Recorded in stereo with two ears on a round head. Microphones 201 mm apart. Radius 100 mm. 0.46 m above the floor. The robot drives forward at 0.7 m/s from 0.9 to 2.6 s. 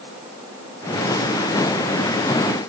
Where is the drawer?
I don't hear a drawer.